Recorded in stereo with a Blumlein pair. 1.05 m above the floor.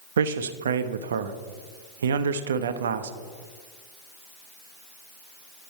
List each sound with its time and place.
0.2 s a man speaking: 65° right, 0.6 m